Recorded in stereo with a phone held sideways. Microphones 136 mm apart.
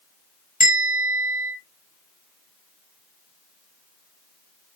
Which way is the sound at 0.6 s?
80° left.